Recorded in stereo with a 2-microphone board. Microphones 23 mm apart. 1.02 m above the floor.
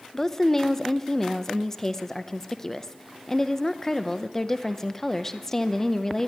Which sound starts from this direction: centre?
A woman speaking, at 0.1 s.